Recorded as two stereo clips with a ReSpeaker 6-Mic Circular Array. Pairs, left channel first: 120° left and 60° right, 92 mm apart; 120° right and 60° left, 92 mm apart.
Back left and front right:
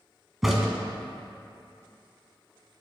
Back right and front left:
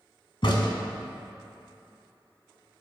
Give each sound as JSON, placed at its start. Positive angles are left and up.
{"t": 0.4, "sound": "a crack", "azimuth_deg": -150, "distance_m": 1.1}